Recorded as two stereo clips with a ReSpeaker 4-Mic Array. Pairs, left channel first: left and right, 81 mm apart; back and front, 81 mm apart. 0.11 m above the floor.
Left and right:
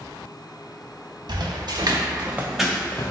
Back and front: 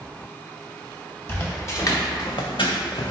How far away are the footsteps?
About 1.1 m.